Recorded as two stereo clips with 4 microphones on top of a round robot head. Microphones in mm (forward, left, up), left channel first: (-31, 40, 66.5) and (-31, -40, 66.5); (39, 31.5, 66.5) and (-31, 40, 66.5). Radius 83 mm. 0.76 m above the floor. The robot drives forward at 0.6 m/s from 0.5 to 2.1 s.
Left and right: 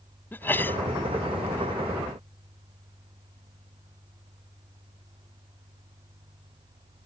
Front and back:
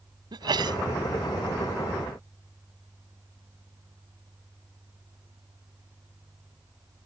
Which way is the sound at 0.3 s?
155° left.